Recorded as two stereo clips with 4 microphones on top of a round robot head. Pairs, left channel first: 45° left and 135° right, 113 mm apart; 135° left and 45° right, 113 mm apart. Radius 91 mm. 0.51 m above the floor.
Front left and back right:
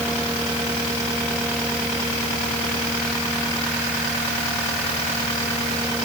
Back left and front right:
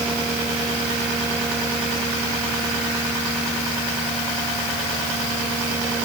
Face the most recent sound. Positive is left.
No sound to turn to.